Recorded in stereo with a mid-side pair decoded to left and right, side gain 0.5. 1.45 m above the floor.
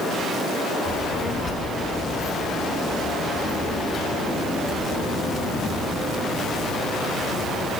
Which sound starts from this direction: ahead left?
A child speaking, at 0.8 s.